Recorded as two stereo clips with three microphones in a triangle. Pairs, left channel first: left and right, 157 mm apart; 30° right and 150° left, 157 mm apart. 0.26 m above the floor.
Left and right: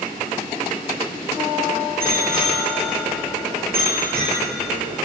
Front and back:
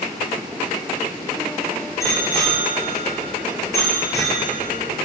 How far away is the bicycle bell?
About 4 m.